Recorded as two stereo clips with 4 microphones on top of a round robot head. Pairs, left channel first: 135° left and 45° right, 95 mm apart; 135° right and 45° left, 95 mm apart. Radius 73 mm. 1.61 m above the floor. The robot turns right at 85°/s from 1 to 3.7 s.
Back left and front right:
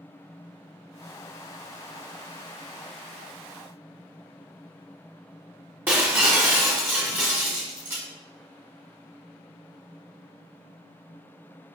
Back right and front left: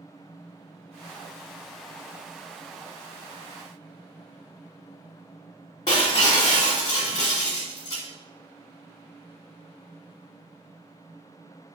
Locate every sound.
5.9 s breaking glass: 100° right, 1.5 m